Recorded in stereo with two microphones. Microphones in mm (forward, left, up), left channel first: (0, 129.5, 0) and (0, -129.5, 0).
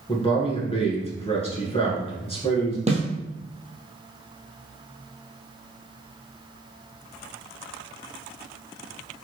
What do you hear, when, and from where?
0.1 s a man speaking: 25° left (ahead or behind), 1.2 m
2.9 s a snare drum: 25° right (ahead or behind), 1.1 m